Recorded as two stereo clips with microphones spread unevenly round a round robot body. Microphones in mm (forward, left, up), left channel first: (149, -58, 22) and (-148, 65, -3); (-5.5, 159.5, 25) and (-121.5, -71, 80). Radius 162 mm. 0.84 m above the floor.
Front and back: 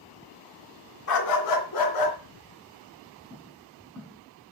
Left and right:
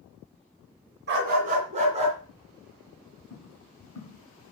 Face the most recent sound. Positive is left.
turn(degrees=60)